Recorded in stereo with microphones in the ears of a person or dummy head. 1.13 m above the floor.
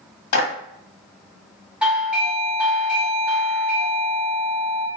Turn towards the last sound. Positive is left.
turn(degrees=-5)  # may be behind; listen again after turning